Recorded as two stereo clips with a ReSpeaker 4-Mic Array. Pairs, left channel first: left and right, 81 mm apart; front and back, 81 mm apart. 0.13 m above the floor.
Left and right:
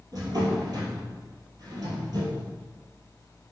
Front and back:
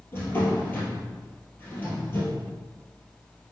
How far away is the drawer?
About 2 m.